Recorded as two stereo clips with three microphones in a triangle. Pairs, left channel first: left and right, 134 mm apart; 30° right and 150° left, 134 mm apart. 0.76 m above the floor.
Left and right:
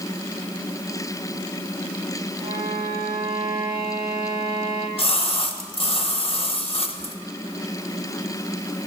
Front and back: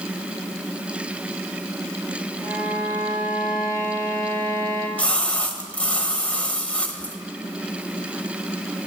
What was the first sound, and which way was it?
A violin, 145° right.